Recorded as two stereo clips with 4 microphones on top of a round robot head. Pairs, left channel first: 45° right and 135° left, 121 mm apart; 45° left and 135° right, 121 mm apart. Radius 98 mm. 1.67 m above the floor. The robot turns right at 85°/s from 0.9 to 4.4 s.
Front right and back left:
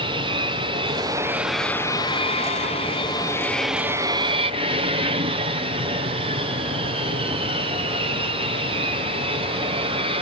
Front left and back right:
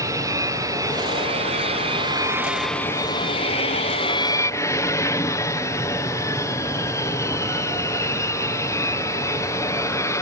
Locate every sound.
0.0 s an aircraft: 170° left; by 10.2 s 105° left